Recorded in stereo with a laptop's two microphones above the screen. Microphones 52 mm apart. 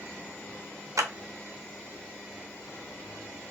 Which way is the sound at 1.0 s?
75° right (ahead or behind).